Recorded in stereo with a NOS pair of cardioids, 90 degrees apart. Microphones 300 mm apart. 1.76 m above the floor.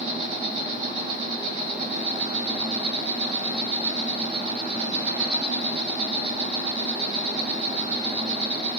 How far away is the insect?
About 2.5 m.